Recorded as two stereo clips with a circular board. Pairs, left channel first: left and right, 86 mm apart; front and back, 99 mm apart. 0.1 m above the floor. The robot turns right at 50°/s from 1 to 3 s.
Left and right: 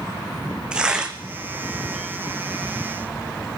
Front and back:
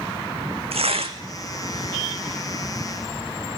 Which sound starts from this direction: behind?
Tearing paper, at 0.7 s.